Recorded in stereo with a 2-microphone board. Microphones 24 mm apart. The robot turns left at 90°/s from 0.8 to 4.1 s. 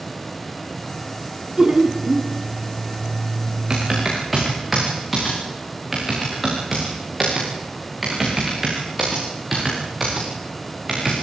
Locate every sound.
1.6 s laughter: 55° right, 1.7 m; by 2.3 s 120° right, 1.7 m
3.7 s typing on a keyboard: 40° right (ahead or behind), 8 m; by 11.1 s 5° right (ahead or behind), 8 m